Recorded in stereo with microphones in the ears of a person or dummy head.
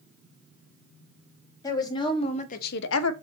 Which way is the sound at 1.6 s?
20° left (ahead or behind).